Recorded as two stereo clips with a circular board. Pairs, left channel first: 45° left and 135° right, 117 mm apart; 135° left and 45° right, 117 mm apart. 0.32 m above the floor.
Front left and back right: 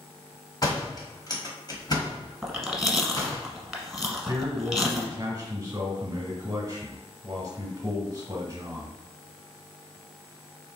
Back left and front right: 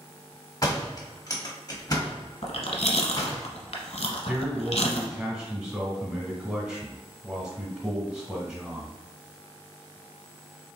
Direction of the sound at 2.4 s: 135° left.